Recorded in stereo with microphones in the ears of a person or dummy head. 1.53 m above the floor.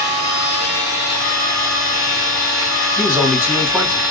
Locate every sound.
0.0 s a machine running: 5° right (ahead or behind), 1.7 m
3.0 s a man speaking: 5° right (ahead or behind), 1.4 m